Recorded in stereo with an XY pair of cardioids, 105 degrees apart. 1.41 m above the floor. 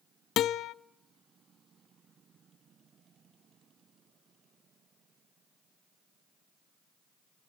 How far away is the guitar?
About 0.5 m.